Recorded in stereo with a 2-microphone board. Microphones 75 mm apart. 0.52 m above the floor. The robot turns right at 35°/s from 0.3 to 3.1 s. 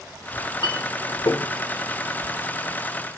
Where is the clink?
70° left (ahead or behind), 0.6 m; by 1.5 s 45° left (ahead or behind), 0.6 m.